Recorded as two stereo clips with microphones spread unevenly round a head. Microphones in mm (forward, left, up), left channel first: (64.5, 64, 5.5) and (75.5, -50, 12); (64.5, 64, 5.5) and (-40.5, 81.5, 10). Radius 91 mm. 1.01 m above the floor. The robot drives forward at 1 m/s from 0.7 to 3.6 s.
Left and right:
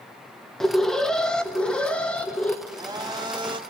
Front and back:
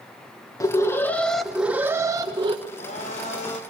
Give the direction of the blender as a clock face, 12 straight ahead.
1 o'clock.